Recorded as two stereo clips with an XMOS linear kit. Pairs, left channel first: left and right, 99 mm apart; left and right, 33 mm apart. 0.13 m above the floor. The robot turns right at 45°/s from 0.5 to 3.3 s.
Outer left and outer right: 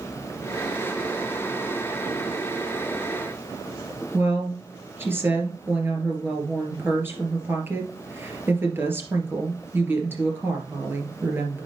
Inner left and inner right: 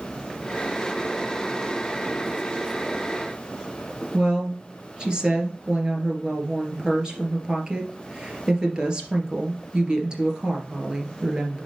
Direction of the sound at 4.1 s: 25° right (ahead or behind).